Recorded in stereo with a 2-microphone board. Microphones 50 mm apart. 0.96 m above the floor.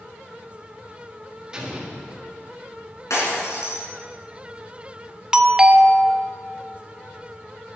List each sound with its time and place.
1.5 s an explosion: 15° right (ahead or behind), 1.7 m
3.1 s breaking glass: 85° left, 4.5 m
5.3 s a doorbell: 10° right (ahead or behind), 0.6 m